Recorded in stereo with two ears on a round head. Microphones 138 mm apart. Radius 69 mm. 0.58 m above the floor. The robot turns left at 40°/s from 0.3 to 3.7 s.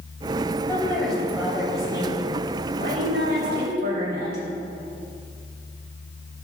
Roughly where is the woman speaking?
Ahead.